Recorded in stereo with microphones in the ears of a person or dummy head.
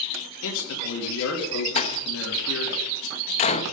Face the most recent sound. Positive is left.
turn(degrees=40)  # may be behind; listen again after turning